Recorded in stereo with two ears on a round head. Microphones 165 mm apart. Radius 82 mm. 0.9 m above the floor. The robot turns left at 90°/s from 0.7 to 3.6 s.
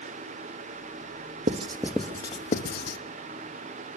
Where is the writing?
40° right (ahead or behind), 0.8 m; by 3.0 s 60° left (ahead or behind), 0.8 m.